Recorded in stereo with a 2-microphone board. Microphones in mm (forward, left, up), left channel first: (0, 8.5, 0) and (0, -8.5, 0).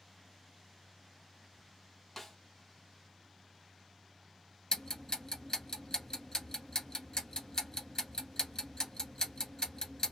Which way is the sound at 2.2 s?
20° left (ahead or behind).